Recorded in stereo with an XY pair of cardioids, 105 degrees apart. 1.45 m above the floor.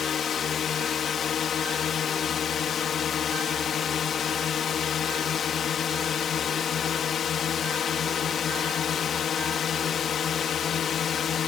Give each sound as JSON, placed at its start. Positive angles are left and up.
{"t": 0.0, "sound": "a drone", "azimuth_deg": 55}